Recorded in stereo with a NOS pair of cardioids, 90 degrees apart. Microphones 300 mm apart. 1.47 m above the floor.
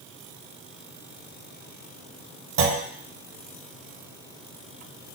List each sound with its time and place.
2.6 s a clunk: 45° right, 0.9 m